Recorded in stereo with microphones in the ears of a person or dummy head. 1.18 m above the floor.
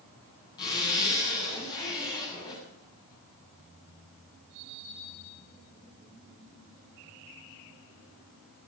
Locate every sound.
0.6 s a zipper: 20° left (ahead or behind), 7 m